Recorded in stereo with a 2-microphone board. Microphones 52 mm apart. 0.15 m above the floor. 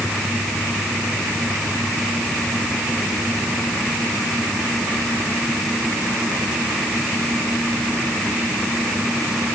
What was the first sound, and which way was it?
Only background noise.